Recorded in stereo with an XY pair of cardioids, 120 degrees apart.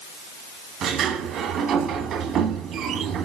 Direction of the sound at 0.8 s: 60° right.